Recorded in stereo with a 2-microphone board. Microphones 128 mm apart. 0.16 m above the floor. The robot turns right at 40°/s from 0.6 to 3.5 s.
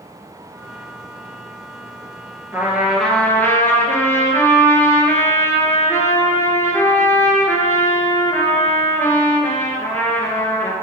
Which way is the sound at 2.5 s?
20° right.